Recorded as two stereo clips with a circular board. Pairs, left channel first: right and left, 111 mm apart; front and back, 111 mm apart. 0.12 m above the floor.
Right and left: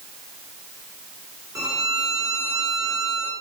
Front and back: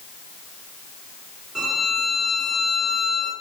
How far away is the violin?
About 1.7 m.